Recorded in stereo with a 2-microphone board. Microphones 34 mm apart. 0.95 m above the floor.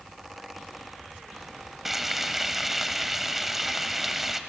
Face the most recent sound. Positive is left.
turn(degrees=-5)  # may be behind; listen again after turning